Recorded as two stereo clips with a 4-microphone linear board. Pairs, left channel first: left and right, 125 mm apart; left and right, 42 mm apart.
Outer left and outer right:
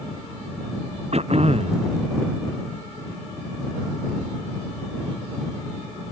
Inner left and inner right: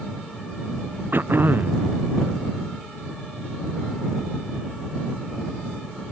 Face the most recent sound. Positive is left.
turn(degrees=-55)  # may be behind; listen again after turning